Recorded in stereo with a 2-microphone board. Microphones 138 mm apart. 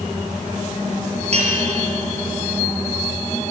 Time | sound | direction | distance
1.3 | a bell | 50° right (ahead or behind) | 6 m